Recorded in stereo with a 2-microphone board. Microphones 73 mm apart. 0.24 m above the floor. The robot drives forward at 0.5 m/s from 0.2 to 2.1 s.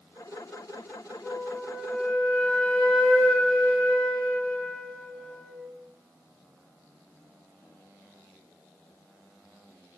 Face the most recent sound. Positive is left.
turn(degrees=10)  # may be behind; listen again after turning